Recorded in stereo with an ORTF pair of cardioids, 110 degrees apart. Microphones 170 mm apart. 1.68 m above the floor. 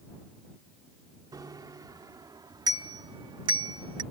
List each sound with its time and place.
1.3 s a bicycle bell: 25° right; by 4.0 s 30° right